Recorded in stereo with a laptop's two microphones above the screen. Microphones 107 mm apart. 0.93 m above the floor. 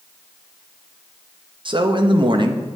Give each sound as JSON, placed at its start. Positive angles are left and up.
{"t": 1.6, "sound": "a man speaking", "side_deg": -50, "distance_m": 0.6}